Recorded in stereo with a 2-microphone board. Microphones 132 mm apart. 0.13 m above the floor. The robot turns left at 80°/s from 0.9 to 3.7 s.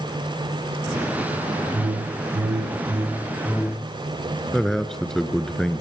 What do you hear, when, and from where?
1.7 s a whoosh: 45° right, 0.5 m; by 3.9 s 155° left, 0.5 m
4.5 s a man speaking: 5° left (ahead or behind), 1.5 m